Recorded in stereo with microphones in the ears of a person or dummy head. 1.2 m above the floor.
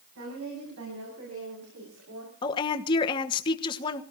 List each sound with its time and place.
0.1 s a woman speaking: 75° right (ahead or behind), 8.5 m; by 2.3 s 80° right, 6 m
2.4 s a woman speaking: 25° left (ahead or behind), 1.2 m